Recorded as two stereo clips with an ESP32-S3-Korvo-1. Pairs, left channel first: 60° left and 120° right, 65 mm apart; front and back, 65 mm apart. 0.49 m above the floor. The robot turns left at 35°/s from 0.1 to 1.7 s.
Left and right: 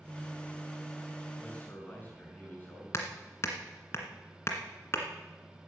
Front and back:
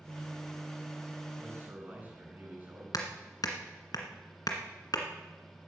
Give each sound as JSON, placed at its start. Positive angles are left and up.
{"t": 1.4, "sound": "a man speaking", "azimuth_deg": 130, "distance_m": 5.5}
{"t": 2.9, "sound": "hammering", "azimuth_deg": 15, "distance_m": 1.9}